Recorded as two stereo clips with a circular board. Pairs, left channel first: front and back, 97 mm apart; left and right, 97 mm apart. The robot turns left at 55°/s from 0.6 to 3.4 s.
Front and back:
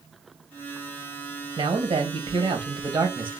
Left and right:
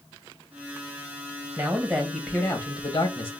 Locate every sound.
1.6 s a man speaking: 160° right, 1.1 m; by 3.3 s 105° left, 1.1 m